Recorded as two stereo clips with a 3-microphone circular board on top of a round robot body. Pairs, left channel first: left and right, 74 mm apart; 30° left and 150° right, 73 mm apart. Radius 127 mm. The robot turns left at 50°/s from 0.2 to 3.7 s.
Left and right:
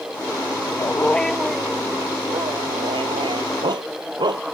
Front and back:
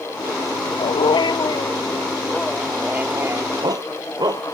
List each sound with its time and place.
0.8 s a dog barking: 30° left; by 4.5 s 115° right